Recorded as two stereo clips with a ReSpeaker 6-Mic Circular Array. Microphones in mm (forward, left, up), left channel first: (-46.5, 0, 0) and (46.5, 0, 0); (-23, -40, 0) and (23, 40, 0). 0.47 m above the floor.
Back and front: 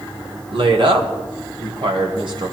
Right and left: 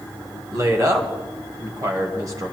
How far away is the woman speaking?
About 1.9 m.